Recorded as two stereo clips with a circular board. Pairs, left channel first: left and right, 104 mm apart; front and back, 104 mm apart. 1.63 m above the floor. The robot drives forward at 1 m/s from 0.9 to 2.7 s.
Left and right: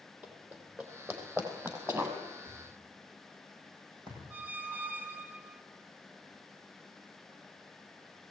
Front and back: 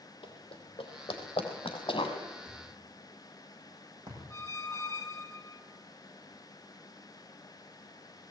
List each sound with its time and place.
0.2 s running footsteps: 20° right, 3.5 m; by 2.2 s 30° right, 3 m
2.5 s a thud: 130° right, 8.5 m; by 4.2 s 135° right, 9 m
4.3 s a squeak: 25° right, 1.2 m